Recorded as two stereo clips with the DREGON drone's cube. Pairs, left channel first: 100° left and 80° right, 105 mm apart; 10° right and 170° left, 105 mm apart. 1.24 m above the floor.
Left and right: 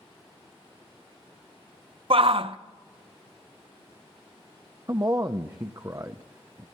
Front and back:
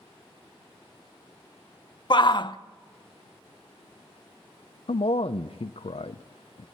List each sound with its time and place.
2.1 s a shout: 55° right, 0.8 m
4.9 s a man speaking: 25° right, 0.6 m